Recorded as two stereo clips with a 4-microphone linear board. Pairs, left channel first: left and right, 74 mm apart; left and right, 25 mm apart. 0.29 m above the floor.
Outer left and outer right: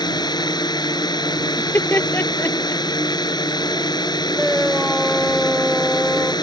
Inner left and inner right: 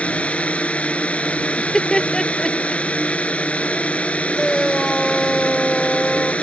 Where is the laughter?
30° left (ahead or behind).